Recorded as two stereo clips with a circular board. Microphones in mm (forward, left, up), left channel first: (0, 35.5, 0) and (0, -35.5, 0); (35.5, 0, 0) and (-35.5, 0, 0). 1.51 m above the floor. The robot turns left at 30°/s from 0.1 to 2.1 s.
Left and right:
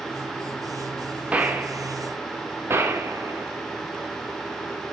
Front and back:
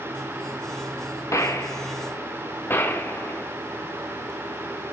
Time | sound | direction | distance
1.3 | a gunshot | 25° right | 1.5 m